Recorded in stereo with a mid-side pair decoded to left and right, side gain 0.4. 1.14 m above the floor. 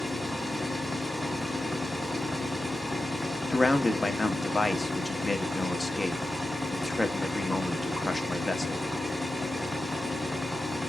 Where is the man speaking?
20° left, 1.2 m.